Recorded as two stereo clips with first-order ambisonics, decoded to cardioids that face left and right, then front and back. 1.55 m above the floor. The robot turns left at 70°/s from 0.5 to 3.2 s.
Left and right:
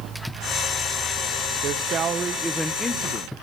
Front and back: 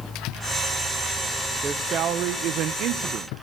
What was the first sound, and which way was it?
A man speaking, 110° right.